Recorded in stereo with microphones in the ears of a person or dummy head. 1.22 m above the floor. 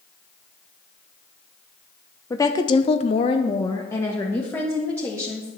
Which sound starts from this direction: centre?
A woman speaking, at 2.3 s.